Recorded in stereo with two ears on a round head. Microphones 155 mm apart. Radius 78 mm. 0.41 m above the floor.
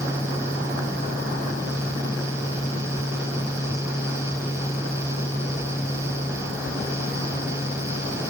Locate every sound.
Only background noise.